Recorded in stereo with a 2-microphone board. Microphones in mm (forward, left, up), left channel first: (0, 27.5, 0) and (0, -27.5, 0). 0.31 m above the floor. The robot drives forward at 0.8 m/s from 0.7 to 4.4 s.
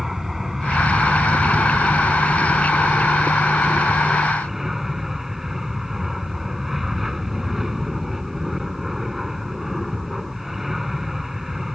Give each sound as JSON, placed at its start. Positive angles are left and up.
{"t": 0.0, "sound": "an aircraft", "side_deg": -5}